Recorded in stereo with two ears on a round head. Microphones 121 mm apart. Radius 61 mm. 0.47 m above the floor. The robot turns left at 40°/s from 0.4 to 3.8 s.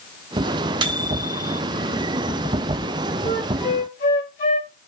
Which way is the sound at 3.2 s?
45° left (ahead or behind).